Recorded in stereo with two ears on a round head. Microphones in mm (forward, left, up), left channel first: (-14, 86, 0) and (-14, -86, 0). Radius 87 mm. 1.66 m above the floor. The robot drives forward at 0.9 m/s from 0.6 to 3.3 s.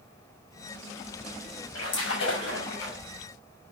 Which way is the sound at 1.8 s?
80° left.